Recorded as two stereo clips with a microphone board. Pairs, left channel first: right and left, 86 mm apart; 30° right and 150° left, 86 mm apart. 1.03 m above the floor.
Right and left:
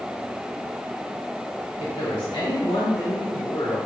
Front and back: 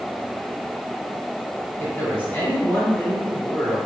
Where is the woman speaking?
95° right, 2.5 m.